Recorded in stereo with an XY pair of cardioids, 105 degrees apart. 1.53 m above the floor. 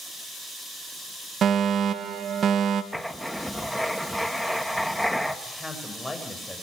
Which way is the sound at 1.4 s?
55° right.